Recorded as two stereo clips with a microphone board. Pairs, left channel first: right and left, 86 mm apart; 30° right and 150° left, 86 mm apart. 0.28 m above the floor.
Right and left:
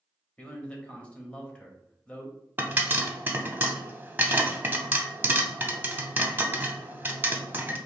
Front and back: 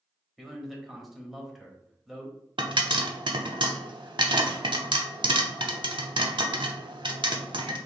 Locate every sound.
0.4 s a man speaking: 125° right, 0.9 m
2.6 s a pop: 155° left, 0.5 m